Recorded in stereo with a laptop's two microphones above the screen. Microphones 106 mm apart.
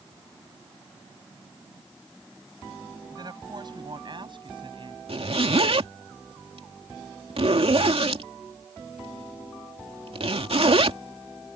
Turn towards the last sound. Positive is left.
turn(degrees=-65)  # may be behind; listen again after turning